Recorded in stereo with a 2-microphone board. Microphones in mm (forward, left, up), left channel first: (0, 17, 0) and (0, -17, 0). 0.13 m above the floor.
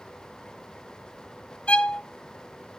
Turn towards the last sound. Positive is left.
turn(degrees=35)  # may be behind; listen again after turning